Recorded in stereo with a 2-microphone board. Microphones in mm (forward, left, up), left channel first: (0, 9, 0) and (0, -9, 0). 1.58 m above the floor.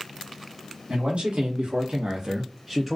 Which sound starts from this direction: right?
A man speaking, at 0.9 s.